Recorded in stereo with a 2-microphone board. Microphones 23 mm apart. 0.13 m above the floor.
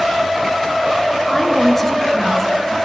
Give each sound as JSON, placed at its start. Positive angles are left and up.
{"t": 1.3, "sound": "a woman speaking", "side_deg": 15, "distance_m": 2.0}